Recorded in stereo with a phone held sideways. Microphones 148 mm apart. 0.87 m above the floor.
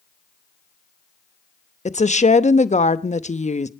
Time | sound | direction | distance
1.9 | a woman speaking | 50° left (ahead or behind) | 0.9 m